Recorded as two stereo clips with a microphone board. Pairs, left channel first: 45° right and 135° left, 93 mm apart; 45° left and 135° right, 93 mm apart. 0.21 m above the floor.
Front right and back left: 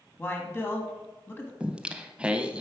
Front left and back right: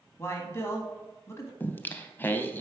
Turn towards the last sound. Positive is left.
turn(degrees=75)